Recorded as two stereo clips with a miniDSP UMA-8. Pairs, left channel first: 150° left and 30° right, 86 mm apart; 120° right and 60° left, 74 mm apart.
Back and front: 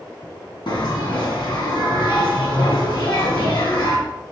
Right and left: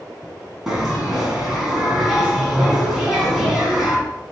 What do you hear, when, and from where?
0.7 s a bell: 145° left, 2 m